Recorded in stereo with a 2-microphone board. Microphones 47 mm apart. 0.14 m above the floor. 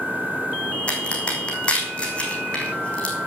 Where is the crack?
25° left (ahead or behind), 4 m.